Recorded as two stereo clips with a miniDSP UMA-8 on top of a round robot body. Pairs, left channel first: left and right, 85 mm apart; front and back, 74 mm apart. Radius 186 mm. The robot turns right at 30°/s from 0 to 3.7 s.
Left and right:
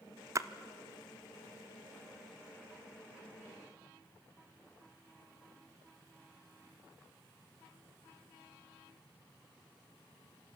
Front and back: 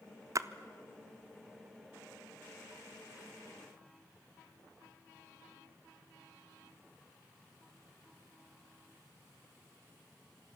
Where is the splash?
140° right, 0.9 m; by 0.5 s 135° right, 0.9 m.